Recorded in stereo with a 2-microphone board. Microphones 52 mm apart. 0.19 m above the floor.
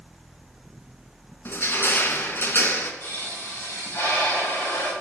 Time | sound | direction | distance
1.4 | crushing | 50° left (ahead or behind) | 2.0 m
3.0 | a pop | 45° left (ahead or behind) | 7.5 m